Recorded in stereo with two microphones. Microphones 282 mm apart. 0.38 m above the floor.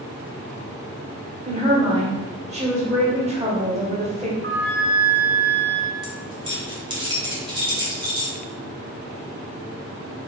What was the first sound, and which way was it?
A woman speaking, 25° right (ahead or behind).